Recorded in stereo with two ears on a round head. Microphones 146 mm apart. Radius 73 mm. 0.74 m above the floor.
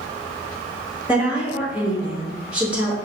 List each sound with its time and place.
1.1 s a woman speaking: 10° right (ahead or behind), 0.9 m